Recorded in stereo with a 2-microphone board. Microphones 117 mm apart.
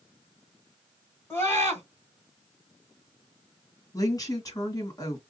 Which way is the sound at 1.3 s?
20° left (ahead or behind).